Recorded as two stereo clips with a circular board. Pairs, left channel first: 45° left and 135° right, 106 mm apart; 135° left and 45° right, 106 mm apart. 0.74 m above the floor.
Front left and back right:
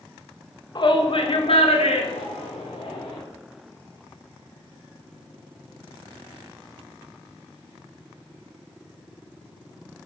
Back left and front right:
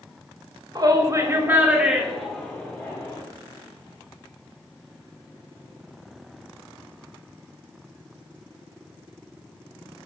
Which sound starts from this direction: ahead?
A shout, at 0.8 s.